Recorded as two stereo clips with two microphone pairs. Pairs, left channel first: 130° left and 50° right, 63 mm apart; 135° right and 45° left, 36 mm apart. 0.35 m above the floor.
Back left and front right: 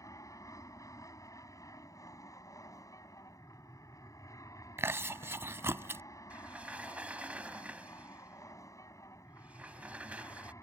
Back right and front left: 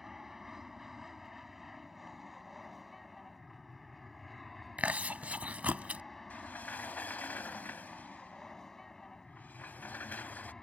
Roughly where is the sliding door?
Behind right.